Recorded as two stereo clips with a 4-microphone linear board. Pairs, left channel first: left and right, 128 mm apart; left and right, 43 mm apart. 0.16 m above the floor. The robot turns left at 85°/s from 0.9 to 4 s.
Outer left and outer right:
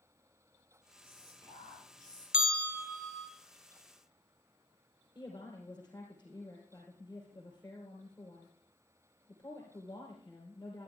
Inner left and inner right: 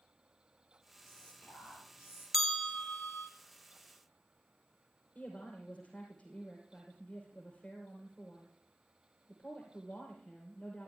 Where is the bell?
175° right, 0.9 m; by 3.3 s 105° left, 0.9 m.